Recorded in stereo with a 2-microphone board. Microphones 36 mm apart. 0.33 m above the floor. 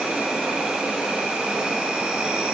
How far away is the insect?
About 1.3 m.